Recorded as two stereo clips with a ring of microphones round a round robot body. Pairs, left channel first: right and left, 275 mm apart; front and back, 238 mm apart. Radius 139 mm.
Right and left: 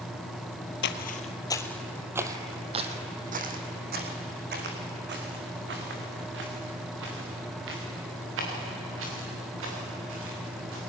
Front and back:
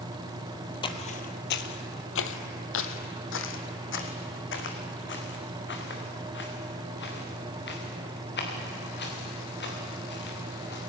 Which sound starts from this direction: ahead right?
Footsteps, at 0.8 s.